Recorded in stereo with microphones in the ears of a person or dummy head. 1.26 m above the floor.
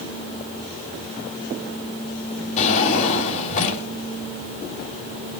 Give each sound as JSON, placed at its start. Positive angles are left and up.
{"t": 2.6, "sound": "a drawer", "side_deg": 35, "distance_m": 3.0}